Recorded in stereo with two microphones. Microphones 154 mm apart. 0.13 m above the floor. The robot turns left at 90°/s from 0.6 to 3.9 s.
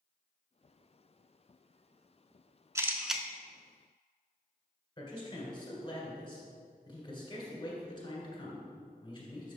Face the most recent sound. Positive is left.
turn(degrees=35)  # may be behind; listen again after turning